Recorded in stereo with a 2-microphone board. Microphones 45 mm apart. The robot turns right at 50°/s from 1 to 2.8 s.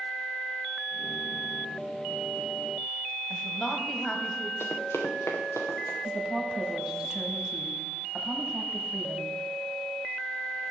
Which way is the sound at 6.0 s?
20° right (ahead or behind).